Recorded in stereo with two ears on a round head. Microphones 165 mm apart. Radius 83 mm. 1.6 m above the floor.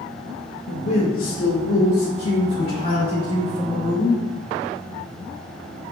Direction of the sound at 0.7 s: 75° left (ahead or behind).